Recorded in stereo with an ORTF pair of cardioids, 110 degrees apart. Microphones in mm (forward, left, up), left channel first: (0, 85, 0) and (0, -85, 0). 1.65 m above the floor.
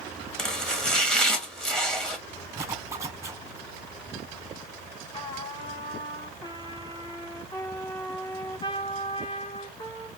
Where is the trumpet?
30° left, 1.8 m.